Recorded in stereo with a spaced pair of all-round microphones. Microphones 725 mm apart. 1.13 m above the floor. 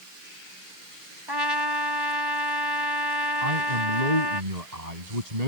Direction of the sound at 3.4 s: 60° right (ahead or behind).